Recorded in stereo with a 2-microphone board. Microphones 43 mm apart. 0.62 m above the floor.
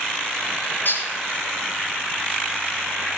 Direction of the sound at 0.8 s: 60° left (ahead or behind).